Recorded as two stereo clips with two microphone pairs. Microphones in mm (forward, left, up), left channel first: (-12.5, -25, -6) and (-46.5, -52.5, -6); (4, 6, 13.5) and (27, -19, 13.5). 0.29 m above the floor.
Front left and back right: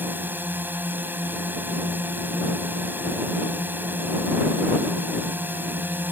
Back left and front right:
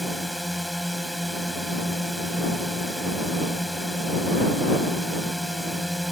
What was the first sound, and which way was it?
A drone, 135° right.